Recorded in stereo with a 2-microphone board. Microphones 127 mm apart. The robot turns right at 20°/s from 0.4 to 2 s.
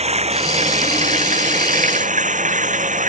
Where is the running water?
120° right; by 3.1 s 90° right.